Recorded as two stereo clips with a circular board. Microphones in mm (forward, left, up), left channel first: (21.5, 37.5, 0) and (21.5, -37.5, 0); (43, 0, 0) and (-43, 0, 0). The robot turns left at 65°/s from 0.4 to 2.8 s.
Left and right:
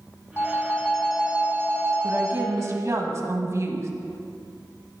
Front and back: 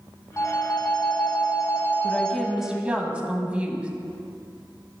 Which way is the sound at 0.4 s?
40° left.